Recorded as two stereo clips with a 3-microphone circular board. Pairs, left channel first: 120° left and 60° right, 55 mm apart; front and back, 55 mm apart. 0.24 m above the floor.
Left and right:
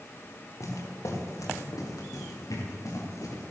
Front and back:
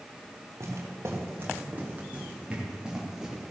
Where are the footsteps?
145° left, 4 m; by 3.5 s 95° left, 5 m.